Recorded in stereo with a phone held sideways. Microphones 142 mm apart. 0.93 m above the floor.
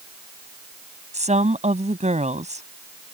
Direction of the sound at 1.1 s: 50° right (ahead or behind).